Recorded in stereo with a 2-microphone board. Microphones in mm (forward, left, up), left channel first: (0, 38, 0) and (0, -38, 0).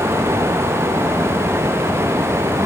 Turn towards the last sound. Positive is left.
No sound to turn to.